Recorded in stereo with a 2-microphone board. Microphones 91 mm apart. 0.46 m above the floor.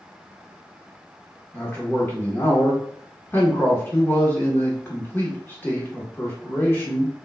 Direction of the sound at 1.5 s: 25° left (ahead or behind).